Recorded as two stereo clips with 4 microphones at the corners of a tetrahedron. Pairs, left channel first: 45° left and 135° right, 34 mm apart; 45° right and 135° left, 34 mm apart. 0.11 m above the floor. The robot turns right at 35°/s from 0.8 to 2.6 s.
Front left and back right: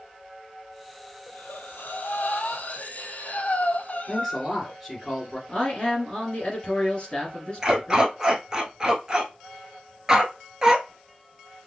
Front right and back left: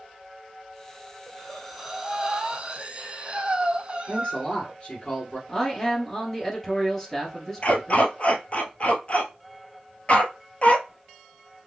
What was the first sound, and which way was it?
Breathing, 30° left.